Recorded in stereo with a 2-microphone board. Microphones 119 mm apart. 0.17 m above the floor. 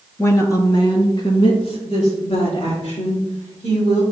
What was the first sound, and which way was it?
A woman speaking, 20° left (ahead or behind).